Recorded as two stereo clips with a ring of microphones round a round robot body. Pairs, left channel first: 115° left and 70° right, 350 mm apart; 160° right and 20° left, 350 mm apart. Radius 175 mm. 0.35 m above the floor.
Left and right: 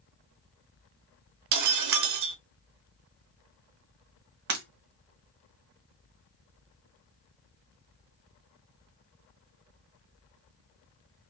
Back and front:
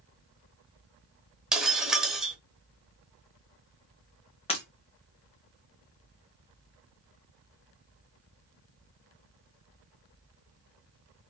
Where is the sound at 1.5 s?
65° right, 0.6 m.